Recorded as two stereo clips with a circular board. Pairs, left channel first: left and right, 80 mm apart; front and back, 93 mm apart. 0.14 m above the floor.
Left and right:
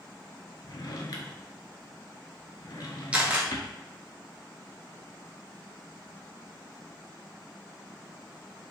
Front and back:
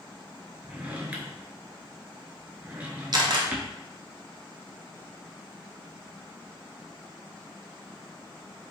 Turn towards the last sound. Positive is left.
turn(degrees=-160)